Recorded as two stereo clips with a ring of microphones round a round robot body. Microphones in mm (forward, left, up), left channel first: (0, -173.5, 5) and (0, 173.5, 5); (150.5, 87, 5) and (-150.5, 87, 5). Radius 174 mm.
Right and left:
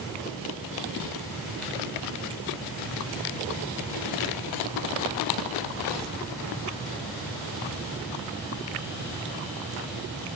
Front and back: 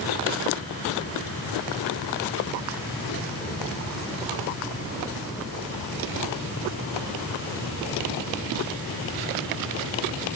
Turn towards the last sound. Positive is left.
No sound to turn to.